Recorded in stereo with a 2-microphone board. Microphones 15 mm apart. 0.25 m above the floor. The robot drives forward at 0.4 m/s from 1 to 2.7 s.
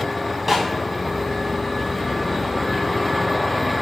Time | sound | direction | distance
0.5 | a snare drum | 15° right (ahead or behind) | 2.5 m